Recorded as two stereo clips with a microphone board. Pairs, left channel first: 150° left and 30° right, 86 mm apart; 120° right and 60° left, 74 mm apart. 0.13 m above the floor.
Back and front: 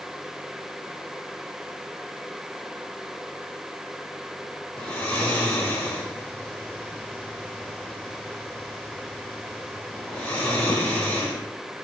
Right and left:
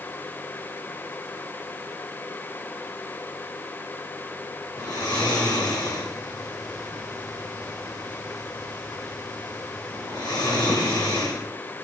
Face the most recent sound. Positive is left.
turn(degrees=-135)